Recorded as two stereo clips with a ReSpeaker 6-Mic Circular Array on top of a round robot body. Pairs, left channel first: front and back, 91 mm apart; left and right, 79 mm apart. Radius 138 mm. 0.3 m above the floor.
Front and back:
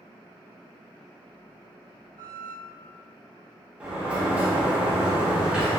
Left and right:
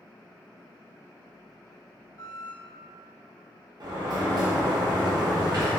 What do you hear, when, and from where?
2.2 s a squeak: 130° left, 0.6 m
3.8 s a sliding door: 105° right, 0.8 m